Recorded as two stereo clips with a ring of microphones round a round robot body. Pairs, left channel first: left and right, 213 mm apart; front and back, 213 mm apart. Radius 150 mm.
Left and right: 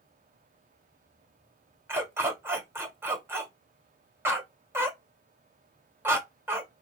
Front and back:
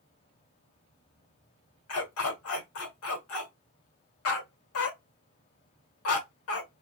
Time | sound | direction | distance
1.9 | a dog barking | 10° right | 1.4 m